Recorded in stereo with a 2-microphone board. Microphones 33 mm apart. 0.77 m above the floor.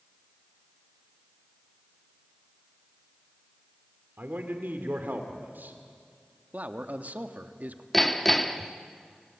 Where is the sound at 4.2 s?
65° right (ahead or behind), 2.5 m.